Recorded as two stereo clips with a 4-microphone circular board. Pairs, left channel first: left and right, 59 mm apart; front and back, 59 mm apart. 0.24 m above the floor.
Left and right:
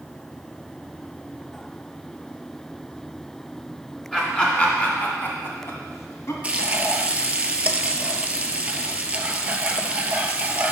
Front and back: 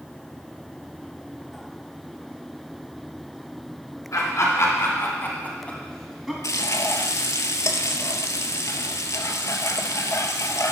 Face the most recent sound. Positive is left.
turn(degrees=-20)